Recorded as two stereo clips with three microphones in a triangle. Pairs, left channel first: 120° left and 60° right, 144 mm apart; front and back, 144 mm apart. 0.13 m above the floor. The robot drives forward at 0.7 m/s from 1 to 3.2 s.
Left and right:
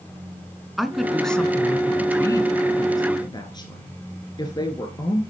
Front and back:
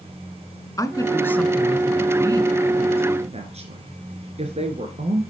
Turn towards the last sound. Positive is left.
turn(degrees=170)